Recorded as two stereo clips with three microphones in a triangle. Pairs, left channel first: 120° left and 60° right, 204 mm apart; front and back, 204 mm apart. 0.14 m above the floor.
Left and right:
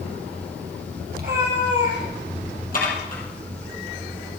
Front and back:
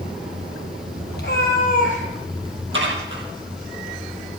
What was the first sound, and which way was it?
A cat meowing, 25° right.